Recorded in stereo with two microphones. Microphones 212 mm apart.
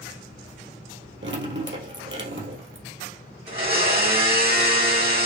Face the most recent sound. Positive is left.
turn(degrees=-55)  # may be behind; listen again after turning